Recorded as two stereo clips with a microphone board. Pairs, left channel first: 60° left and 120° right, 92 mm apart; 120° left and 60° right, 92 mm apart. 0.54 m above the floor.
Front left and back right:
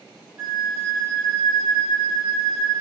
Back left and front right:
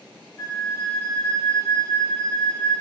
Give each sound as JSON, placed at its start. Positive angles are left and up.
{"t": 0.4, "sound": "a flute", "azimuth_deg": 175, "distance_m": 1.8}